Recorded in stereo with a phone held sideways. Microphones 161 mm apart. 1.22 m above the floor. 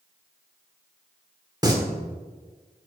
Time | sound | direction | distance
1.6 | singing | 25° right (ahead or behind) | 1.1 m